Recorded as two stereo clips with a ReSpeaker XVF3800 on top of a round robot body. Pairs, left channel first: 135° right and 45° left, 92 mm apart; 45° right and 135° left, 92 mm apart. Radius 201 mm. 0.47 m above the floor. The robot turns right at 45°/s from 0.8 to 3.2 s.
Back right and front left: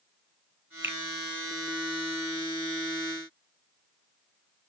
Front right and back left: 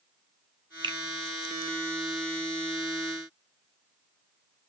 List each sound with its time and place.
0.8 s a finger snap: 105° left, 0.8 m; by 1.0 s 115° left, 0.8 m